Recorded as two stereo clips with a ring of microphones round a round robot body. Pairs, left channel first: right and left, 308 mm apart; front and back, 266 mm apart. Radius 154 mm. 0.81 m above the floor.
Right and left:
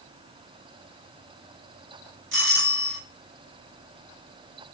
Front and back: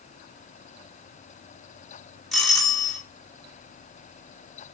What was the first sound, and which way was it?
A doorbell, 90° left.